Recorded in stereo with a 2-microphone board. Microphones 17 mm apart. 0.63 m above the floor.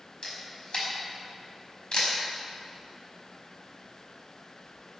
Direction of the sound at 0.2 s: 60° left (ahead or behind).